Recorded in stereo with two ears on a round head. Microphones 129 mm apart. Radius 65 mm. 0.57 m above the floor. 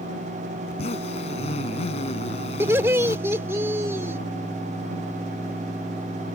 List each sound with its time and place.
0.7 s a zipper: 45° left (ahead or behind)
2.6 s laughter: 15° right (ahead or behind)